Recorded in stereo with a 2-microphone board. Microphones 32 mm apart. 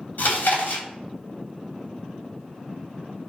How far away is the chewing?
About 3 m.